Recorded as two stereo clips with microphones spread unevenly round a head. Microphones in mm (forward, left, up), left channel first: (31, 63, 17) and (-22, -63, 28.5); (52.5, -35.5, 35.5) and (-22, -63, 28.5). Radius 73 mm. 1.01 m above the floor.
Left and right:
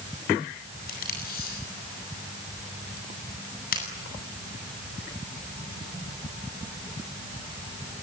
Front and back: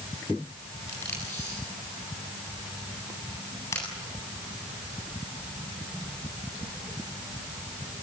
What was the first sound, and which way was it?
Tape being pulled, 90° left.